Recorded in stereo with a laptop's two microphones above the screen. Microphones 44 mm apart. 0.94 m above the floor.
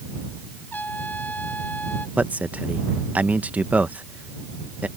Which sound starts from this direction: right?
A man speaking, at 2.2 s.